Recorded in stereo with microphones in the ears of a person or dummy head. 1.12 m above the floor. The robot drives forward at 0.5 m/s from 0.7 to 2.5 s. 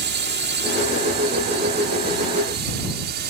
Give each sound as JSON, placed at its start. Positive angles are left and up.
{"t": 0.0, "sound": "a drone", "side_deg": -45}